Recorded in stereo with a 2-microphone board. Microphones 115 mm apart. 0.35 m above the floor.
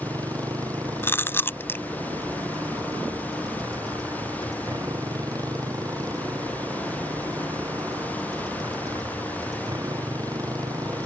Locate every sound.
0.0 s a motorcycle: 30° right (ahead or behind)
1.0 s chewing: 20° left (ahead or behind)